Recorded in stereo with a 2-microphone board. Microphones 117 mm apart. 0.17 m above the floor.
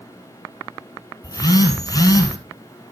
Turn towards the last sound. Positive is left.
turn(degrees=30)  # may be behind; listen again after turning